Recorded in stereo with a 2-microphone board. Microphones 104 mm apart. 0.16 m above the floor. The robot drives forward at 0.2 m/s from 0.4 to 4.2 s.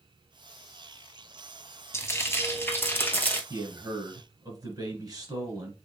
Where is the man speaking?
40° right (ahead or behind), 1.6 m; by 5.8 s 45° right (ahead or behind), 1.6 m.